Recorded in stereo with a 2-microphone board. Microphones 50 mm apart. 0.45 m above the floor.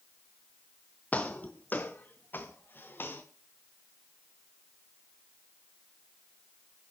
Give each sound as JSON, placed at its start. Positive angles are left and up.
{"t": 1.1, "sound": "footsteps", "side_deg": 35, "distance_m": 1.8}